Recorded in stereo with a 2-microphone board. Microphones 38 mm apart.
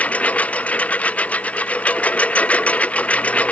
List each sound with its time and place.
0.0 s a lawn mower: 40° left (ahead or behind); by 3.5 s 35° left (ahead or behind)